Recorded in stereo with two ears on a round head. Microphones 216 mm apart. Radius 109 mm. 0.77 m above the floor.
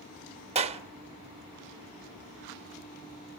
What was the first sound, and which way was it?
A clap, 25° right (ahead or behind).